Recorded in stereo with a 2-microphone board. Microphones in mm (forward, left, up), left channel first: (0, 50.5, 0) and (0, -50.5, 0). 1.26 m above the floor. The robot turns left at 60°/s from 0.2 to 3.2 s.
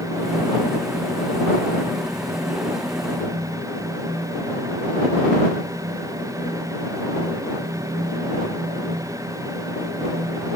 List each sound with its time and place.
Only background noise.